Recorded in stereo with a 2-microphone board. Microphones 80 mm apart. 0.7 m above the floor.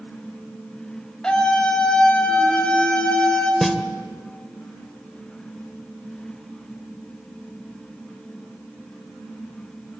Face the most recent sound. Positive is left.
turn(degrees=0)  # may be behind; listen again after turning